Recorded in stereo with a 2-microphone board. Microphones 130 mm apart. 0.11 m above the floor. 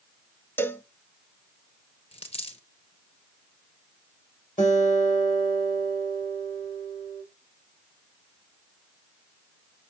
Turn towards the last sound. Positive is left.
turn(degrees=75)  # may be behind; listen again after turning